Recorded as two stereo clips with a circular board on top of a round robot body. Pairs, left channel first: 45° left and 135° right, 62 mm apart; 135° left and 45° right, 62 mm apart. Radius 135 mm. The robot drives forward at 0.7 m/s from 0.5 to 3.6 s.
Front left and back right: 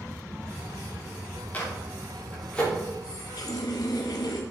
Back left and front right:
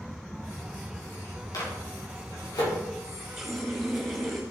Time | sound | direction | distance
1.5 | a microwave | 105° left | 3.5 m
3.0 | a running tap | 35° left | 1.4 m